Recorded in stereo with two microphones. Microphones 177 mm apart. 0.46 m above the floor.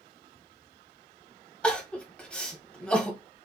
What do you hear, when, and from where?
1.6 s crying: 5° left (ahead or behind), 1.2 m